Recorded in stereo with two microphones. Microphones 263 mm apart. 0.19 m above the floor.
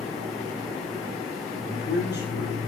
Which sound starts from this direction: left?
A man speaking, at 1.7 s.